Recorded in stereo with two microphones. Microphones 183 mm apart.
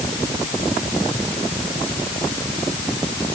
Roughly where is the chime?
I don't hear a chime.